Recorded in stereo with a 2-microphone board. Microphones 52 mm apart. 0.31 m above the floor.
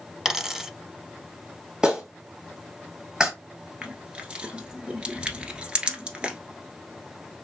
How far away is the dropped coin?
About 0.7 m.